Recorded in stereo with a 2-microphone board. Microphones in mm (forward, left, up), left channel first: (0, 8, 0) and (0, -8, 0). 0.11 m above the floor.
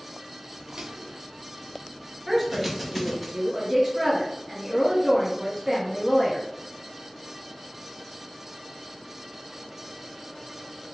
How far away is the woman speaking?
About 1.2 m.